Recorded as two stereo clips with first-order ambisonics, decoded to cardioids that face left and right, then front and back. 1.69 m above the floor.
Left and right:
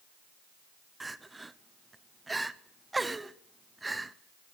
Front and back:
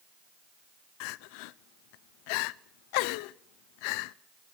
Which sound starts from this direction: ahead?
Crying, at 1.0 s.